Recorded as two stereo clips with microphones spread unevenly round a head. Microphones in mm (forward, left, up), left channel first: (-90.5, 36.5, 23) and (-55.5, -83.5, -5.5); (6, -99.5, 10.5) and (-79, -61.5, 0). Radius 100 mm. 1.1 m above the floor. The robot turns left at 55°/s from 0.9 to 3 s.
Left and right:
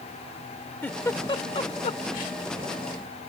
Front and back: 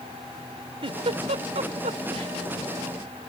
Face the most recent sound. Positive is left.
turn(degrees=65)